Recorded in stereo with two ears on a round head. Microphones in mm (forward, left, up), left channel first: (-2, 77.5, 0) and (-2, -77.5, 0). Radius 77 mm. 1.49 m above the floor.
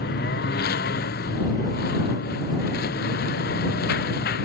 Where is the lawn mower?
60° left (ahead or behind).